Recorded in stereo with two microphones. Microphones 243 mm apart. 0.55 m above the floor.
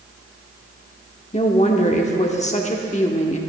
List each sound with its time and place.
1.3 s a woman speaking: 30° left (ahead or behind), 1.1 m